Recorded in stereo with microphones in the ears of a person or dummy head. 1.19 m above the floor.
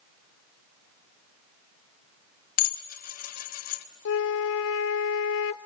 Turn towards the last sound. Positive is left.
turn(degrees=65)  # may be behind; listen again after turning